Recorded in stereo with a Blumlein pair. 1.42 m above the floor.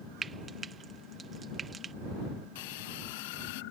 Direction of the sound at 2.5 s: 50° left.